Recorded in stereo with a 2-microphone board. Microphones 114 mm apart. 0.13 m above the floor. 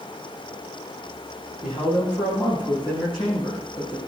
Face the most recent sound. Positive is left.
turn(degrees=40)  # may be behind; listen again after turning